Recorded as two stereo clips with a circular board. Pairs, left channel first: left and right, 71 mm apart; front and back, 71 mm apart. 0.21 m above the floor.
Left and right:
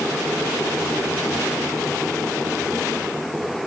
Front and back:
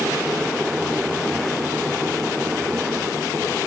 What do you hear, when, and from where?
Only background noise.